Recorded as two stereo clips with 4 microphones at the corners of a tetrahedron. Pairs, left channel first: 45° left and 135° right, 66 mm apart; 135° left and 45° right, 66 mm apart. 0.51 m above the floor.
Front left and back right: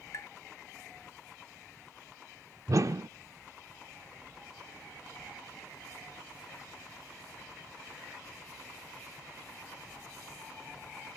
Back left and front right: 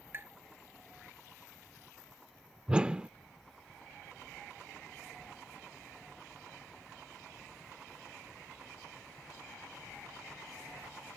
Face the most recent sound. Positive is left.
turn(degrees=-115)